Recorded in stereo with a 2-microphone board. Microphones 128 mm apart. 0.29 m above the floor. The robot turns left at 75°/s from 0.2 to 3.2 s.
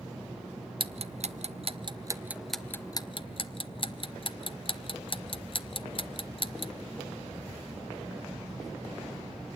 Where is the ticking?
40° right (ahead or behind), 0.7 m; by 6.7 s 40° left (ahead or behind), 0.7 m.